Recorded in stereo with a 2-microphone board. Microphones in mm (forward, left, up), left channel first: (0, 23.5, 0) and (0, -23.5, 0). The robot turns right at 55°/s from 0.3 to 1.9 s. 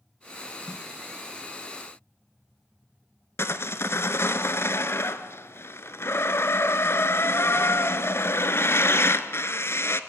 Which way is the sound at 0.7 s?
15° left (ahead or behind).